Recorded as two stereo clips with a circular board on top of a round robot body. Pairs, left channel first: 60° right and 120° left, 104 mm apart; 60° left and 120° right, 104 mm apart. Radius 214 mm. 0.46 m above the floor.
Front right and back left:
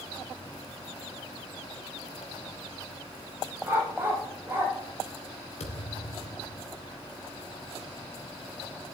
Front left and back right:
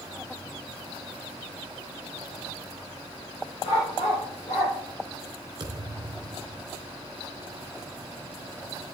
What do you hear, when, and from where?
3.6 s a dog barking: 50° left, 8 m
5.6 s a thud: 70° right, 3 m